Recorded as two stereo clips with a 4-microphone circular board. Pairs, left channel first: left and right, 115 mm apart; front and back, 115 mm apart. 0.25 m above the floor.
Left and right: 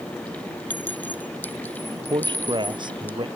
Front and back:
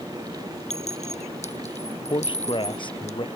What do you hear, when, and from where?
0.7 s a clink: 15° left
2.1 s a man speaking: 45° right